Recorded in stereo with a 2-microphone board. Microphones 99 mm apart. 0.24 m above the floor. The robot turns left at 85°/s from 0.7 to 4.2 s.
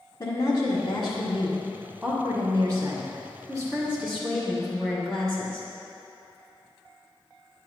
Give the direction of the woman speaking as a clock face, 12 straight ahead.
8 o'clock.